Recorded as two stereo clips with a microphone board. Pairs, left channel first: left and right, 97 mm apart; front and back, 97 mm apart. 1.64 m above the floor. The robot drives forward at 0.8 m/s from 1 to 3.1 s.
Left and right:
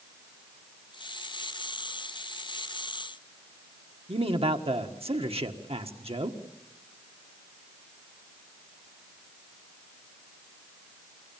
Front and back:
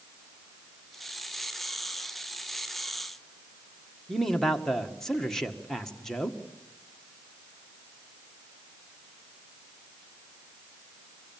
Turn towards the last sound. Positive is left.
turn(degrees=-85)